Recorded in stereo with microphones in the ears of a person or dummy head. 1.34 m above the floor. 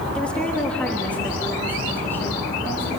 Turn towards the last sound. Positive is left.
turn(degrees=10)  # may be behind; listen again after turning